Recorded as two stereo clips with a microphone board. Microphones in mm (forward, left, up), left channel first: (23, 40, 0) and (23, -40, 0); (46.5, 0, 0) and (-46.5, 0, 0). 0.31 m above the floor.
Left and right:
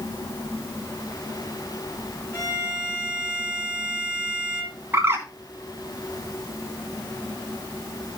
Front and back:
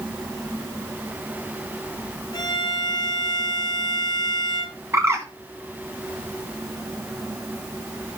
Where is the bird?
135° right, 2 m.